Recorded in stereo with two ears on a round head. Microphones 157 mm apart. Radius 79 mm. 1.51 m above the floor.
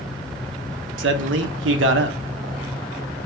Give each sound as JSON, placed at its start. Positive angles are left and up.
{"t": 1.0, "sound": "a man speaking", "side_deg": -75, "distance_m": 0.8}